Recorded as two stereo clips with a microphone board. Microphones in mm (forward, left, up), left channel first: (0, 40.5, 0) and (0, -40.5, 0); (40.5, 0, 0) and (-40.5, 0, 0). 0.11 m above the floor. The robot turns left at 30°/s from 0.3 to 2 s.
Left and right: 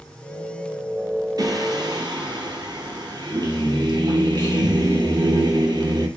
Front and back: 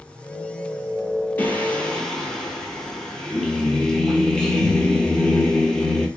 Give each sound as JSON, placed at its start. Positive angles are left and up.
{"t": 1.4, "sound": "singing", "azimuth_deg": -65, "distance_m": 0.9}